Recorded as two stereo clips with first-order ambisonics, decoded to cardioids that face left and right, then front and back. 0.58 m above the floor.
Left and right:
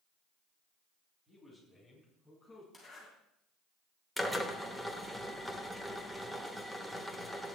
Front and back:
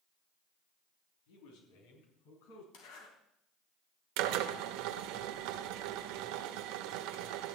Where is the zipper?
Straight ahead, 3.5 m.